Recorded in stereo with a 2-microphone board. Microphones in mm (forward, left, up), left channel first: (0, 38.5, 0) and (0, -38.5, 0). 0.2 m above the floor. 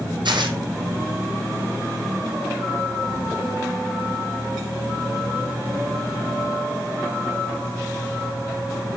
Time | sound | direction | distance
0.2 | tearing paper | 85° right | 1.9 m